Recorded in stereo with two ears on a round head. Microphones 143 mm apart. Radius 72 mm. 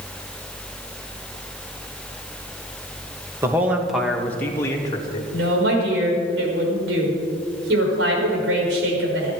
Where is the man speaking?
15° right (ahead or behind), 2 m; by 5.2 s 25° left (ahead or behind), 3 m.